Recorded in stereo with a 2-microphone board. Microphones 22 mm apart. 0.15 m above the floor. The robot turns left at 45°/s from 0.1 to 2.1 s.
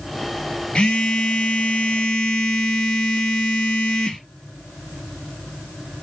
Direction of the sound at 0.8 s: 115° left.